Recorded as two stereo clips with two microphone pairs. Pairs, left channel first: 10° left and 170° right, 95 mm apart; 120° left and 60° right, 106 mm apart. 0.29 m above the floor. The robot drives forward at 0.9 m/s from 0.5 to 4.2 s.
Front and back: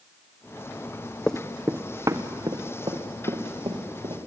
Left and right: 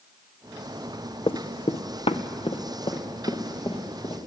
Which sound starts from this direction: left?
Running footsteps, at 1.3 s.